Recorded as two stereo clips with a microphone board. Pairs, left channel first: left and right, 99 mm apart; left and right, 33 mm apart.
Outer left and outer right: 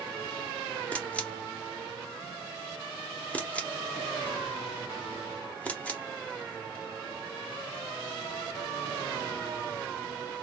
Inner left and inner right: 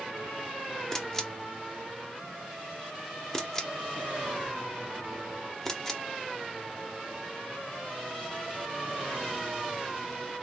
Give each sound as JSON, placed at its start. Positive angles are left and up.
{"t": 0.9, "sound": "a camera shutter", "side_deg": 15, "distance_m": 1.1}